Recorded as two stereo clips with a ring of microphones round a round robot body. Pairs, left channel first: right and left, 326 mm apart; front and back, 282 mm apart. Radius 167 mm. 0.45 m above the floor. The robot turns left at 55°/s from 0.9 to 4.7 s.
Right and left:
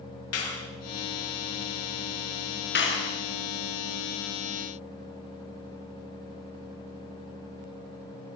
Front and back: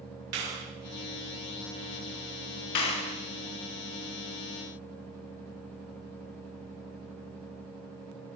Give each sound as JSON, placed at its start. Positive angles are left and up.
{"t": 0.3, "sound": "a clap", "azimuth_deg": -135, "distance_m": 7.5}
{"t": 2.8, "sound": "a clap", "azimuth_deg": -30, "distance_m": 5.5}